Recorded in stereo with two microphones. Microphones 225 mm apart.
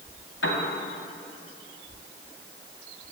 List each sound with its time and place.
0.4 s a piano: 60° left (ahead or behind), 2 m